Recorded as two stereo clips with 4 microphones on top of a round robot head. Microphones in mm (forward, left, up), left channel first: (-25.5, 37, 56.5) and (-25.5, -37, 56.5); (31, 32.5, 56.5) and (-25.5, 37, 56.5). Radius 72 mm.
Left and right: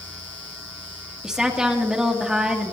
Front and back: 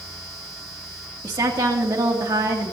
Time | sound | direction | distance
1.2 | a woman speaking | 170° right | 2.5 m